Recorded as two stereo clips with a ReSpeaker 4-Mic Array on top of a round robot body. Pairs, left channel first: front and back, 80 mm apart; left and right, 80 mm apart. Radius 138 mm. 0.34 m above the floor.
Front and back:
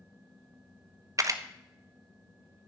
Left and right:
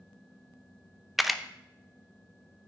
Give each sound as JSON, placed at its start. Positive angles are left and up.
{"t": 1.2, "sound": "a camera shutter", "azimuth_deg": 180, "distance_m": 0.9}